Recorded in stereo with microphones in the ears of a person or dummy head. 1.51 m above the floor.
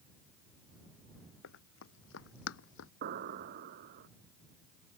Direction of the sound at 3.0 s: 50° right (ahead or behind).